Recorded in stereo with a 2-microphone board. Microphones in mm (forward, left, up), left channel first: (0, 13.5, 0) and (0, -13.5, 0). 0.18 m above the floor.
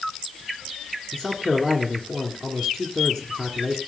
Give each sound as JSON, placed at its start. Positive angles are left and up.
{"t": 1.1, "sound": "a man speaking", "side_deg": 20, "distance_m": 2.0}